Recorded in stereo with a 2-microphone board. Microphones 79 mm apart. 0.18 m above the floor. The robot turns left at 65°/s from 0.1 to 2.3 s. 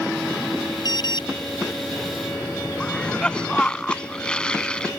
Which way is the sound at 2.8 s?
15° left (ahead or behind).